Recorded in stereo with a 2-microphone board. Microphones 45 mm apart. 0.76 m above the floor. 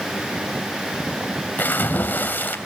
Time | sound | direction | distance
1.6 | a splash | 50° left (ahead or behind) | 2.5 m